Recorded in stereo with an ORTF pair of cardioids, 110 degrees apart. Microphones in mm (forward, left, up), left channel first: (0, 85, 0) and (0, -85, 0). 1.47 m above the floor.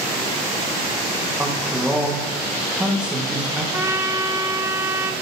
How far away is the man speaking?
About 1.6 m.